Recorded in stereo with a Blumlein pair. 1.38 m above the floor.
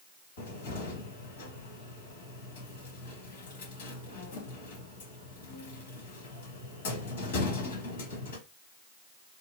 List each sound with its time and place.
0.4 s a cupboard door: 60° left, 2.0 m